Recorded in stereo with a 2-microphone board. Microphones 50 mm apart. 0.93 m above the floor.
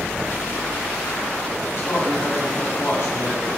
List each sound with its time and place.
1.8 s a man speaking: 55° left (ahead or behind), 8 m